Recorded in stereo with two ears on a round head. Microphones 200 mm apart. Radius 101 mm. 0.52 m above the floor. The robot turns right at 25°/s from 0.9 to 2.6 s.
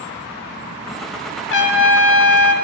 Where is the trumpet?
55° left (ahead or behind), 1.3 m; by 2.5 s 65° left (ahead or behind), 1.3 m.